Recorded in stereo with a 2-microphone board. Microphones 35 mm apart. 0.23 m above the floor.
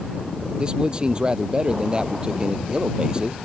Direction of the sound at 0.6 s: 25° right (ahead or behind).